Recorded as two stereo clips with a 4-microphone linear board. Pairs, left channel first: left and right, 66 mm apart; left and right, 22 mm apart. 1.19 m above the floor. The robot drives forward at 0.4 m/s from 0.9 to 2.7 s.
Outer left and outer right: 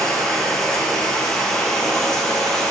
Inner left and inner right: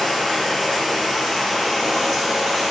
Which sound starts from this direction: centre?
Running water, at 0.0 s.